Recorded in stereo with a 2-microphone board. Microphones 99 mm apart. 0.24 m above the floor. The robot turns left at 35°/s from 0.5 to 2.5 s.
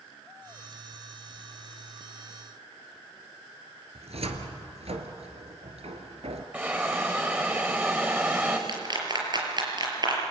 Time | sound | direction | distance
4.0 | a cupboard door | 75° right (ahead or behind) | 2.5 m
6.5 | a hiss | 15° right (ahead or behind) | 5 m
8.7 | a clap | 45° right (ahead or behind) | 5 m